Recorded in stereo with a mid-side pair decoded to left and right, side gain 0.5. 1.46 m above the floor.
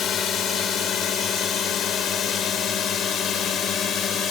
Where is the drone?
60° left; by 4.3 s 65° left.